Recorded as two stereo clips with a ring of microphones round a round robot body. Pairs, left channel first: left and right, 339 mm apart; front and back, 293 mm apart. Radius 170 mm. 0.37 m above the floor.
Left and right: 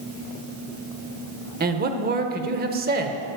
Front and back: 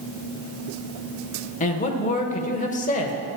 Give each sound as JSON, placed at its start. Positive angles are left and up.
{"t": 1.6, "sound": "a man speaking", "azimuth_deg": -50, "distance_m": 1.0}